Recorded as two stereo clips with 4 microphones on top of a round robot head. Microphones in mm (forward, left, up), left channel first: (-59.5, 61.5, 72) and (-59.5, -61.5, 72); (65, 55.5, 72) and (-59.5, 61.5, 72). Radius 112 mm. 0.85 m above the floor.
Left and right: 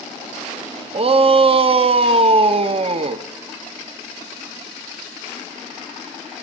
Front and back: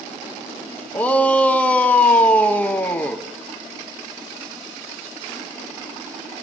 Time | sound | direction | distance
0.9 | a shout | 80° right | 1.1 m